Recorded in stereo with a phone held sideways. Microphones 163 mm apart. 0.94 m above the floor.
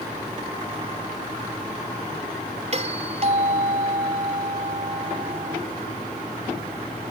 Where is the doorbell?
45° right (ahead or behind).